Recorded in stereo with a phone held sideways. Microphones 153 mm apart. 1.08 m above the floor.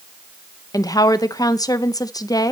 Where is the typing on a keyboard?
No typing on a keyboard in this recording.